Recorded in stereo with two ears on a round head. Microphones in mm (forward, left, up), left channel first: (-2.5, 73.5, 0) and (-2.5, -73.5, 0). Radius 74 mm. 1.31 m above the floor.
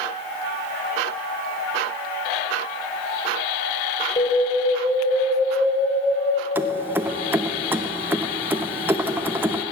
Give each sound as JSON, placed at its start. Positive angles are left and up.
{"t": 4.2, "sound": "an alarm", "side_deg": 30, "distance_m": 3.0}
{"t": 6.5, "sound": "keys jangling", "side_deg": -15, "distance_m": 0.5}